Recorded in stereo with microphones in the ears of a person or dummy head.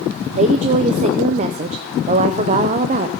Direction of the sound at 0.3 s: 45° right (ahead or behind).